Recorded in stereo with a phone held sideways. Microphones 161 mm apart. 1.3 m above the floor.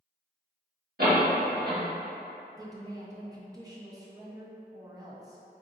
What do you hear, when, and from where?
1.0 s a door slam: 65° right (ahead or behind), 1.2 m
2.6 s a woman speaking: 20° right (ahead or behind), 0.5 m